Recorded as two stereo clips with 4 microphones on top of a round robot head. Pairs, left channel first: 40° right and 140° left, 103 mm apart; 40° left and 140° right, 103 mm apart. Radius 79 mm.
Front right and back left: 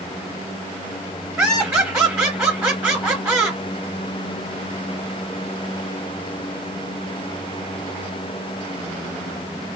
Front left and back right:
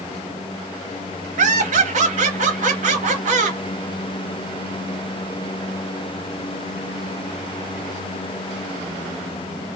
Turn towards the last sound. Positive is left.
turn(degrees=-145)